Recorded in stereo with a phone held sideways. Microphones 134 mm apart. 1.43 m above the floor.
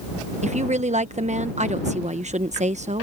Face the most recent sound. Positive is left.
turn(degrees=-60)  # may be behind; listen again after turning